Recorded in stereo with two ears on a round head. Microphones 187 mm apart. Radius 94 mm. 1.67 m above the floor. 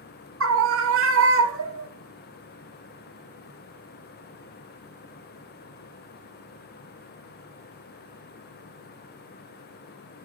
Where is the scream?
65° right (ahead or behind), 3.5 m.